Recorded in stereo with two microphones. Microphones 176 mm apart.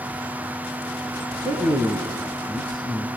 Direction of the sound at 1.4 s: 25° right (ahead or behind).